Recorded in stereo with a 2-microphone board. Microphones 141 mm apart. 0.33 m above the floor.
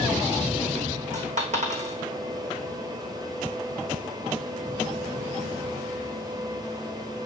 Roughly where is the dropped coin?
Right.